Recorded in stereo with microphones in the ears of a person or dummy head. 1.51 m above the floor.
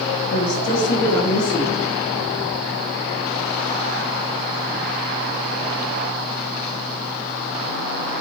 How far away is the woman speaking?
About 0.7 m.